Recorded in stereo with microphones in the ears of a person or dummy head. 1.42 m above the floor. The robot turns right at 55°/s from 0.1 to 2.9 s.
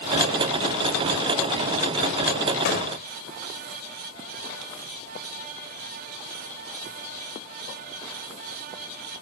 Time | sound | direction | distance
2.6 | a gunshot | 60° left (ahead or behind) | ?